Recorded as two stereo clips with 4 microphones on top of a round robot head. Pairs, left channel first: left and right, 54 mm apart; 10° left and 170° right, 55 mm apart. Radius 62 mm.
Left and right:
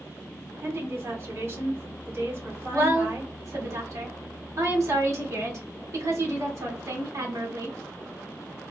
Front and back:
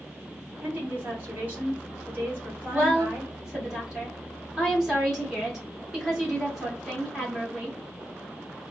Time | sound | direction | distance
0.6 | a woman speaking | 120° right | 2 m
2.7 | a woman speaking | 95° right | 1.8 m